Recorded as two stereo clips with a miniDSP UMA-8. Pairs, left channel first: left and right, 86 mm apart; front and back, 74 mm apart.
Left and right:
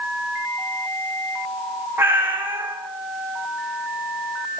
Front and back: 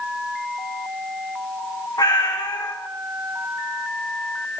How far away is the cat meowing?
About 3.5 m.